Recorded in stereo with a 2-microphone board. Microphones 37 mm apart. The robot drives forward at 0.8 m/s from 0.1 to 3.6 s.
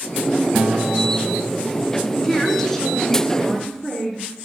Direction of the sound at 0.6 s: 25° right (ahead or behind).